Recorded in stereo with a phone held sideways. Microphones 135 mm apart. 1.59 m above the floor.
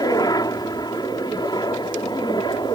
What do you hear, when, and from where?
0.0 s a helicopter: 25° left (ahead or behind); by 2.8 s 30° left (ahead or behind)